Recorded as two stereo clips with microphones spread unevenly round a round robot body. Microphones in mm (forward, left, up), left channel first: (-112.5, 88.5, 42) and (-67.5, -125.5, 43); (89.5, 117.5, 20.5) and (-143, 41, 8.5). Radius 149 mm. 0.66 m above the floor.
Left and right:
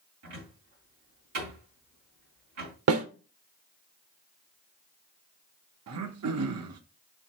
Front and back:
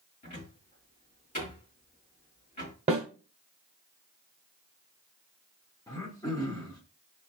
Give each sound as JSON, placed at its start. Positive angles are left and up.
{"t": 0.2, "sound": "a cupboard door", "azimuth_deg": -45, "distance_m": 2.5}
{"t": 2.9, "sound": "a snare drum", "azimuth_deg": -90, "distance_m": 0.8}
{"t": 5.9, "sound": "throat clearing", "azimuth_deg": -60, "distance_m": 0.5}